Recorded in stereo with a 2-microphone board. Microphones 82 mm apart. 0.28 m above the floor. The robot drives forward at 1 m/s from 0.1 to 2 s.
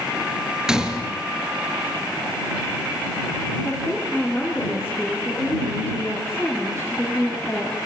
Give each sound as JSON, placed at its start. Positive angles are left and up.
{"t": 0.7, "sound": "a gunshot", "side_deg": -10, "distance_m": 3.5}
{"t": 3.6, "sound": "a woman speaking", "side_deg": 10, "distance_m": 5.0}